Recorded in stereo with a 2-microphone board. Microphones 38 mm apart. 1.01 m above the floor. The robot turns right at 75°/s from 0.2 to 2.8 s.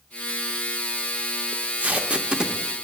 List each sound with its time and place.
1.5 s tape being pulled: 45° right (ahead or behind), 0.6 m; by 2.8 s centre (ahead or behind), 0.6 m